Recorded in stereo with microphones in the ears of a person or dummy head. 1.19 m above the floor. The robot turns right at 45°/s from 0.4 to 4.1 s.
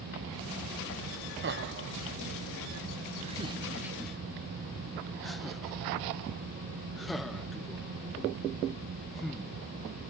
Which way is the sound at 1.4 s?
45° right (ahead or behind).